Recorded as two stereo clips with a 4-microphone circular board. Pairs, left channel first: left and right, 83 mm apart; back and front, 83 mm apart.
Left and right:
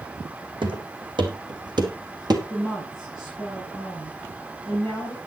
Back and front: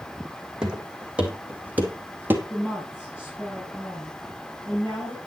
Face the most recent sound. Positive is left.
turn(degrees=-115)